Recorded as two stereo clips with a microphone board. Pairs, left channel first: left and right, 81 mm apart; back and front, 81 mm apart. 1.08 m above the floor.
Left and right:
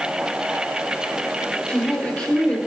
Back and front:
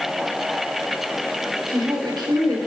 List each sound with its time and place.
1.7 s a woman speaking: 15° left, 4 m